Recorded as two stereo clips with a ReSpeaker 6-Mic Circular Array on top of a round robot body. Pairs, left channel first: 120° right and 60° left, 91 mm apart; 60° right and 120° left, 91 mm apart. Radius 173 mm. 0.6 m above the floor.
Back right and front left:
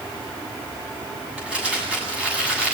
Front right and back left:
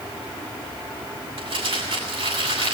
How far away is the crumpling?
About 7.5 m.